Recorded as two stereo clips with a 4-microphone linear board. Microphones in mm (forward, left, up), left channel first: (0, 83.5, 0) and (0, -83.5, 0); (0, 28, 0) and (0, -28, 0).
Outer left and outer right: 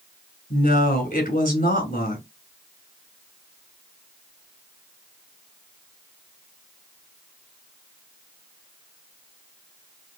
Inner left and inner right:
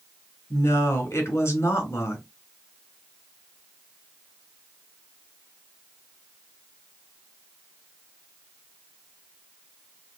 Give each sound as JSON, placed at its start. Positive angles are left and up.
{"t": 0.5, "sound": "a woman speaking", "side_deg": 55, "distance_m": 2.5}